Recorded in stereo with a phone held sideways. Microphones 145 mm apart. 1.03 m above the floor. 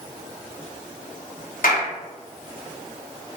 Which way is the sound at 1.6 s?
70° left (ahead or behind).